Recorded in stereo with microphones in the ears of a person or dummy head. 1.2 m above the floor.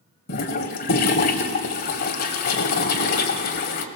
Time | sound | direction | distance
0.3 | a toilet flushing | 50° left (ahead or behind) | 1.9 m